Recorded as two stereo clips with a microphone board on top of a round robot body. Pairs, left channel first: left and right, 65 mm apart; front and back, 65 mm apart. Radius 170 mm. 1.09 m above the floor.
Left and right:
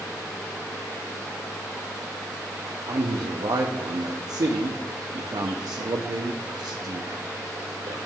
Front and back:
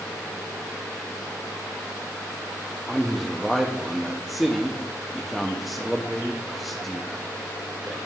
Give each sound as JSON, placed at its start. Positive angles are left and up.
{"t": 2.9, "sound": "a man speaking", "azimuth_deg": -90, "distance_m": 0.6}